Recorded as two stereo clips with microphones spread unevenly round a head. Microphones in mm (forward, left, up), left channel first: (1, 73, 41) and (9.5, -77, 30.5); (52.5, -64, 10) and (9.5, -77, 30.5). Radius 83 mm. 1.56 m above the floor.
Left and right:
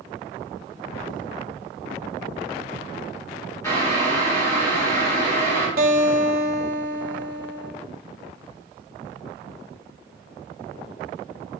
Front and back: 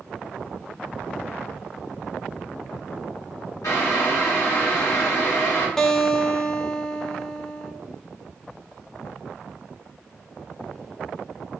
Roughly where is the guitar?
Right.